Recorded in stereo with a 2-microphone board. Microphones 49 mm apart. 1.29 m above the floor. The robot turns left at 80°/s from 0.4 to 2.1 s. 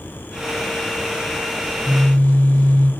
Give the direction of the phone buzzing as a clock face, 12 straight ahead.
10 o'clock.